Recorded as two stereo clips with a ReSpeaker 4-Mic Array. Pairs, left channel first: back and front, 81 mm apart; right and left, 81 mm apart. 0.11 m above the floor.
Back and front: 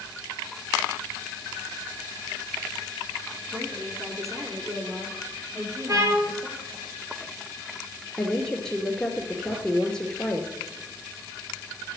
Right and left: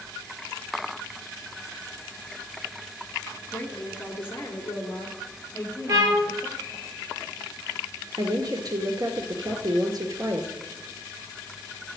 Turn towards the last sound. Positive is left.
turn(degrees=100)